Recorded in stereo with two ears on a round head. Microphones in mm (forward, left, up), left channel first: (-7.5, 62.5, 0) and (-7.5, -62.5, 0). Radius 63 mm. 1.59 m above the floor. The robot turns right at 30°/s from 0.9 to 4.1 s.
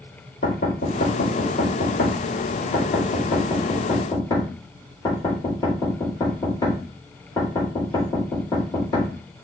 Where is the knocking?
55° left (ahead or behind), 4.5 m; by 9.1 s 30° left (ahead or behind), 4.5 m.